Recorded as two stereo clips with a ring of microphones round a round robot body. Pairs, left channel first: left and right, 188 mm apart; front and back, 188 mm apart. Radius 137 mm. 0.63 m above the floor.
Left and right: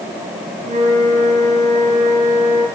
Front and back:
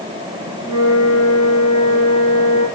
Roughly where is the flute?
Ahead right.